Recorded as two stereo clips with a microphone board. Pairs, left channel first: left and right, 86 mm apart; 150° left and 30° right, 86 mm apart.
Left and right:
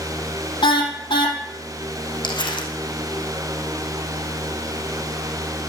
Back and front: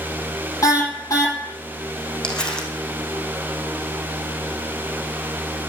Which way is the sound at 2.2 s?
70° left.